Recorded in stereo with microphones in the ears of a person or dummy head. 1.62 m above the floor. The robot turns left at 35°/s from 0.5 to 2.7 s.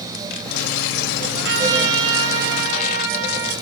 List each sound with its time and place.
1.4 s a trumpet: 70° right, 6 m; by 3.5 s 115° right, 6 m